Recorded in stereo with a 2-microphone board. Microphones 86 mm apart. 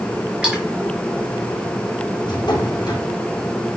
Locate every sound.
0.4 s a splash: 15° right (ahead or behind), 4 m
2.2 s a drawer: 55° left (ahead or behind), 3.5 m